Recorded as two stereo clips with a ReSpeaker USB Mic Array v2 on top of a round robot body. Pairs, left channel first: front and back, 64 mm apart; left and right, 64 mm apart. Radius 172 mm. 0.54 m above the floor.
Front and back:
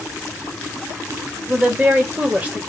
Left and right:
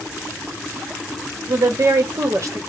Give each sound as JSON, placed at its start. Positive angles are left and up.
{"t": 1.5, "sound": "a woman speaking", "azimuth_deg": -115, "distance_m": 1.1}